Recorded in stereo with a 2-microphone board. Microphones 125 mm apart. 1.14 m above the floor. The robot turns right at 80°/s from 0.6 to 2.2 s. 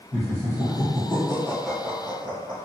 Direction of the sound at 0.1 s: 50° left (ahead or behind).